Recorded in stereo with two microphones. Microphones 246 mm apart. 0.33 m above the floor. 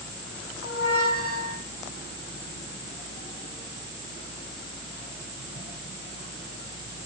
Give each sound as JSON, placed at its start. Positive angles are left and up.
{"t": 0.6, "sound": "a squeak", "side_deg": 70, "distance_m": 5.0}